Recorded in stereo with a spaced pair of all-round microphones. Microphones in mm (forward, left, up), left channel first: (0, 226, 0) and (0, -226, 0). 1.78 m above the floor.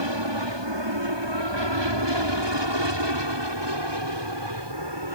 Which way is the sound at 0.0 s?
70° right (ahead or behind).